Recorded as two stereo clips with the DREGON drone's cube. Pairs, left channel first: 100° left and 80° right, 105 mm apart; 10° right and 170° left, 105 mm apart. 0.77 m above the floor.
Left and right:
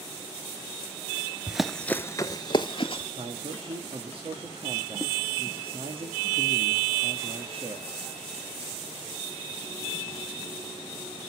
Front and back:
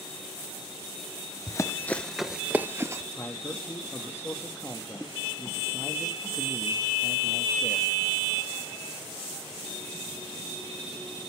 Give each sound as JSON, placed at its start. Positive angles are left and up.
{"t": 1.5, "sound": "running footsteps", "azimuth_deg": 0, "distance_m": 0.8}
{"t": 3.2, "sound": "a man speaking", "azimuth_deg": -75, "distance_m": 1.4}